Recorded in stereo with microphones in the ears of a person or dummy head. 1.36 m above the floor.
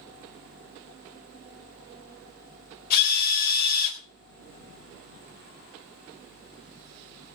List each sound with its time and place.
2.9 s a drill: 50° left (ahead or behind), 3.5 m